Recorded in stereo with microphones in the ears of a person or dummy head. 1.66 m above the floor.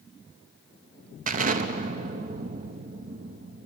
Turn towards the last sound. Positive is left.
turn(degrees=-40)  # may be behind; listen again after turning